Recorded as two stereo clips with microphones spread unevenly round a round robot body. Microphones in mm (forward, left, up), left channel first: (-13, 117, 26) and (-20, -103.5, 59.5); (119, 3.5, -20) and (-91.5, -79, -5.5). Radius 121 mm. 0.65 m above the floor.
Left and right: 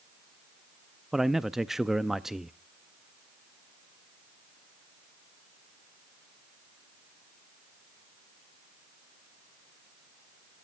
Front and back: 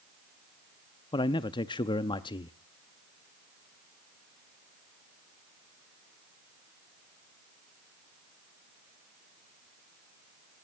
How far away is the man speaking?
About 0.5 m.